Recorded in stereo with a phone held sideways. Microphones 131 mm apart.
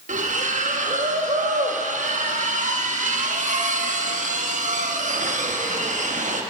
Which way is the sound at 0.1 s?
70° right (ahead or behind).